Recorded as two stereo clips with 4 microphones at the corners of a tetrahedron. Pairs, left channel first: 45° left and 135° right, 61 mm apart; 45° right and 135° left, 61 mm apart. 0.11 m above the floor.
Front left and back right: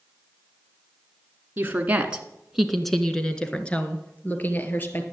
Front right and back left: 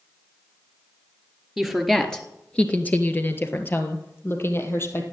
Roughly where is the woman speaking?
Behind right.